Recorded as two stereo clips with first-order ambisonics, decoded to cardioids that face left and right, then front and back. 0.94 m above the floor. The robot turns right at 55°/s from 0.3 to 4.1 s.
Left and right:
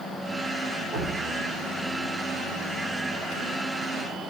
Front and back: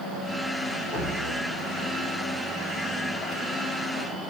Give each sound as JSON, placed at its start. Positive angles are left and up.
{"t": 0.9, "sound": "dripping", "azimuth_deg": -50, "distance_m": 1.2}